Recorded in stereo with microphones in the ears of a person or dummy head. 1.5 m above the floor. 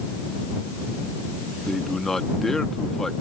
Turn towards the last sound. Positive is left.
turn(degrees=0)  # may be behind; listen again after turning